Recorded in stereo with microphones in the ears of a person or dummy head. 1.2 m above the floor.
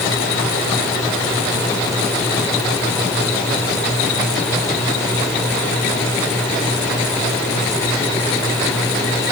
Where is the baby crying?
No baby crying in this recording.